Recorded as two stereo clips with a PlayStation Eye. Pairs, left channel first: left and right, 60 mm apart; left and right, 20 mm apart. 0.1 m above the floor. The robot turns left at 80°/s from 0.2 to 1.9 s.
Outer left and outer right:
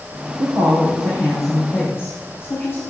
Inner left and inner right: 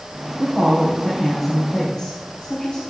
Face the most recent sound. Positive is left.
turn(degrees=135)